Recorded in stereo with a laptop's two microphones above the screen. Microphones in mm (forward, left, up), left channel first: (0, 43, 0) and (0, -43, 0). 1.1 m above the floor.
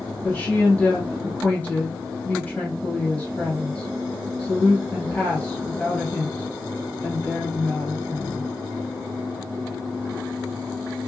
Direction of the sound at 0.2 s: 20° left (ahead or behind).